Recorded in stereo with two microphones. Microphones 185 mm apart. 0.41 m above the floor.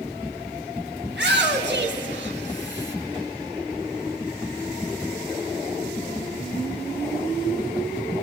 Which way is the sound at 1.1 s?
70° right (ahead or behind).